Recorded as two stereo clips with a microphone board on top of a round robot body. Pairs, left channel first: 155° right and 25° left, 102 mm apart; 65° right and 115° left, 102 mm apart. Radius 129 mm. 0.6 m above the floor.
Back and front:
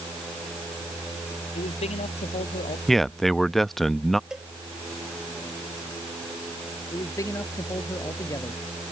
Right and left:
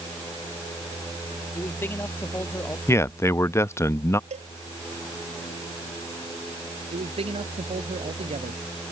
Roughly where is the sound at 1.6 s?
Behind right.